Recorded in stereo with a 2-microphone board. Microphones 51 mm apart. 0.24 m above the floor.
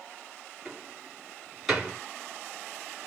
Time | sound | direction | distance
0.7 | a door slam | centre (ahead or behind) | 1.7 m